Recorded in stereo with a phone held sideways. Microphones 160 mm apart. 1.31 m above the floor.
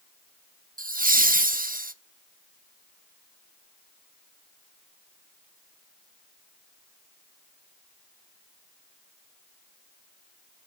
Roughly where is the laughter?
Right.